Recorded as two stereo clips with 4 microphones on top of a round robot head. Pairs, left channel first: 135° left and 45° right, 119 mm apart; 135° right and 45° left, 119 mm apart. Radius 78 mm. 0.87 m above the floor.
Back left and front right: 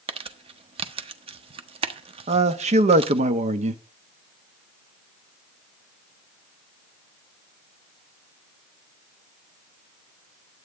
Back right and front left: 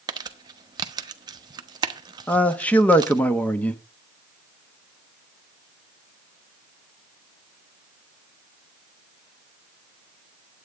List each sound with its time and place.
0.1 s crumpling: 10° right, 1.1 m
2.3 s a man speaking: 60° right, 1.2 m